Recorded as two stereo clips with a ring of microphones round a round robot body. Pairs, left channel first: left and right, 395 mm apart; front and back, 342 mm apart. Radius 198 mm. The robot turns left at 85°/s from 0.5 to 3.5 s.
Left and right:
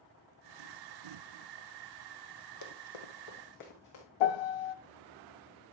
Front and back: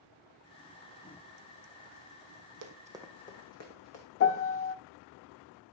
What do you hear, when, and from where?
2.6 s running footsteps: 140° left, 1.6 m; by 4.0 s 40° left, 3.5 m
4.2 s a piano: 55° left, 0.5 m